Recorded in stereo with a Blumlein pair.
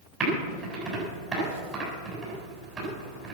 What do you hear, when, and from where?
0.2 s typing on a keyboard: 25° right, 8 m